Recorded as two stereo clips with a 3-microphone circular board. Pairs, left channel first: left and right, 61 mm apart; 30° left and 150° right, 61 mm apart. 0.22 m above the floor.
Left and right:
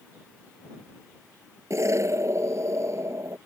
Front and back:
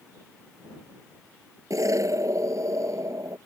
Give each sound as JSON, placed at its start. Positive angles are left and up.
{"t": 1.7, "sound": "an explosion", "azimuth_deg": -125}